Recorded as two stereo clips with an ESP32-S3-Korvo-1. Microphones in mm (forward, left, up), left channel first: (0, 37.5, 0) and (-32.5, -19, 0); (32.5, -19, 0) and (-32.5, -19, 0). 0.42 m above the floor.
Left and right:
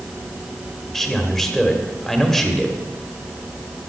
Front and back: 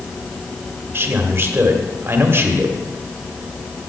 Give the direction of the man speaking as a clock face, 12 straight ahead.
7 o'clock.